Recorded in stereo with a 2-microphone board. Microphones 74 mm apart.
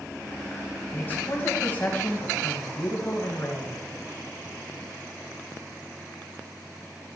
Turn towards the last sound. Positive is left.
turn(degrees=30)  # may be behind; listen again after turning